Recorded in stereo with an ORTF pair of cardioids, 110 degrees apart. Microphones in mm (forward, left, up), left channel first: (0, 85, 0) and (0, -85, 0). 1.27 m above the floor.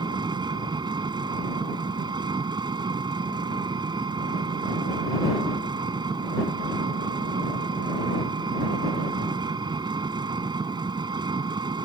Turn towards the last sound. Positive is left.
turn(degrees=-25)